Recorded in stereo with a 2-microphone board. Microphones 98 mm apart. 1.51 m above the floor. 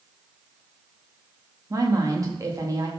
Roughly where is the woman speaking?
Right.